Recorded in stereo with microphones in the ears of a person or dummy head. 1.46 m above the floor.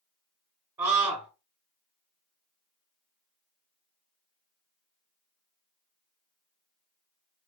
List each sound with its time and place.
0.8 s a scream: 25° right (ahead or behind), 0.8 m